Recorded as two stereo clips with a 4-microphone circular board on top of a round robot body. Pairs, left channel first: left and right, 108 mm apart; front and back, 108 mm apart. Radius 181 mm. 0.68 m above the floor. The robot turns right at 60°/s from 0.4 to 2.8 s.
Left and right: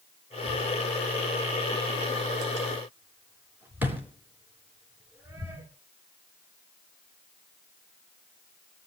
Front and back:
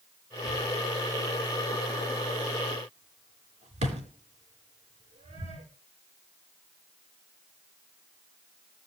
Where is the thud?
55° left, 3.5 m; by 5.7 s 165° right, 3.5 m.